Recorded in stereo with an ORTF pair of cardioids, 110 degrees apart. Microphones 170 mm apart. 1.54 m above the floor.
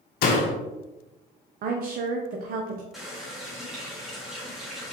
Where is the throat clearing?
No throat clearing in this recording.